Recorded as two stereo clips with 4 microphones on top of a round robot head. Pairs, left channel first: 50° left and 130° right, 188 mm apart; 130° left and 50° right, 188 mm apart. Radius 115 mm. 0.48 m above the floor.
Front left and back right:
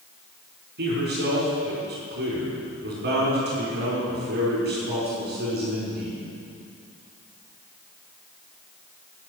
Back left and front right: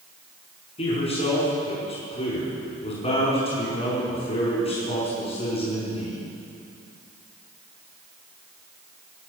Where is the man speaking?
170° right, 5 m.